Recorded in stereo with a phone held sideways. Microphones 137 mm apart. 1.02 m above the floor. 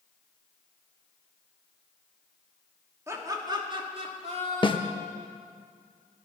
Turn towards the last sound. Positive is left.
turn(degrees=35)  # may be behind; listen again after turning